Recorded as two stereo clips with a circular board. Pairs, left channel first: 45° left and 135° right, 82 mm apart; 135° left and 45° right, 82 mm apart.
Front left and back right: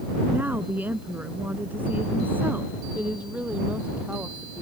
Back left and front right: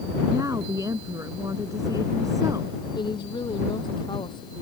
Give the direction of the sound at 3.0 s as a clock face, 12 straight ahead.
7 o'clock.